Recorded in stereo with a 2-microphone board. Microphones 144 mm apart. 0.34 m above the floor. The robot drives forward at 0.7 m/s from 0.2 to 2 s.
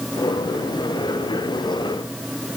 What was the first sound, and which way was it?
Only background noise.